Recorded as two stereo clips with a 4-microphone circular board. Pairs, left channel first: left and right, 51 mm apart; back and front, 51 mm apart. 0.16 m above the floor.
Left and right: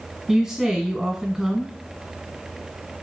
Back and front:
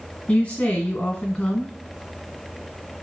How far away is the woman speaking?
About 1.2 m.